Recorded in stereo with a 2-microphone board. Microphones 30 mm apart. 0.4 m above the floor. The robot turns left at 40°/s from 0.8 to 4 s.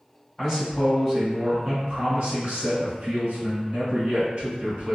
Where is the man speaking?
20° left, 2.0 m; by 5.0 s 105° right, 2.0 m.